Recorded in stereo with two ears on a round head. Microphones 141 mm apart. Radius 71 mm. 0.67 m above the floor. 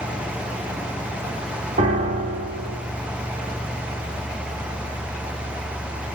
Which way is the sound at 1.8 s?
45° right (ahead or behind).